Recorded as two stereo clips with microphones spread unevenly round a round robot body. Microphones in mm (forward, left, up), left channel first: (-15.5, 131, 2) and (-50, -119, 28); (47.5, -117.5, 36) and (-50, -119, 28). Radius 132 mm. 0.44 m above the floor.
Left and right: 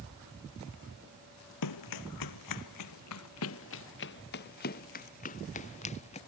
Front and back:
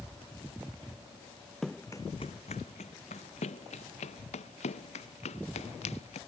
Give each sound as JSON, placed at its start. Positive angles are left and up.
{"t": 1.6, "sound": "running footsteps", "azimuth_deg": 90}